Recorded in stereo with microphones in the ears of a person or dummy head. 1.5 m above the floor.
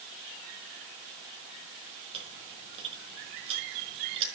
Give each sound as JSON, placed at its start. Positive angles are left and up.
{"t": 2.1, "sound": "chewing", "side_deg": -30, "distance_m": 5.5}